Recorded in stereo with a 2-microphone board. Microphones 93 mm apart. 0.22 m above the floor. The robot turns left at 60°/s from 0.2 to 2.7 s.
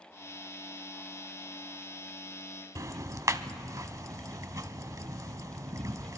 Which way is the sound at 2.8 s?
35° right (ahead or behind).